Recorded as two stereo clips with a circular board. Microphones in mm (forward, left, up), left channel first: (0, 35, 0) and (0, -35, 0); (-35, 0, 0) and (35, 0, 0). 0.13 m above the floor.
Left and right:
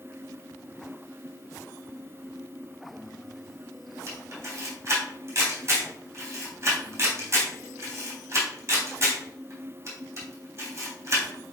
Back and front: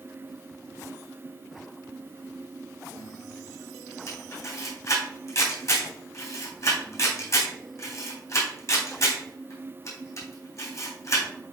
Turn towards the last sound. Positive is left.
turn(degrees=-140)